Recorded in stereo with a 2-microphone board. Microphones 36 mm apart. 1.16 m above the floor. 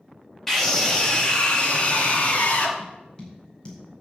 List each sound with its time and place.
0.5 s a scream: 10° left (ahead or behind), 2.5 m; by 2.7 s 50° left (ahead or behind), 3 m
2.8 s tapping: 25° left (ahead or behind), 5 m